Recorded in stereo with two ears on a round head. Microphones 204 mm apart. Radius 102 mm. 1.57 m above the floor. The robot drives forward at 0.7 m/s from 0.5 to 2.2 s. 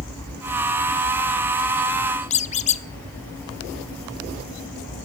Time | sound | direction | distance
2.3 | a squeak | 30° left (ahead or behind) | 0.5 m